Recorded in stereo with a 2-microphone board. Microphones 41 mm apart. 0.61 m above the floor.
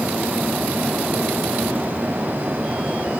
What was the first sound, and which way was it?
Only background noise.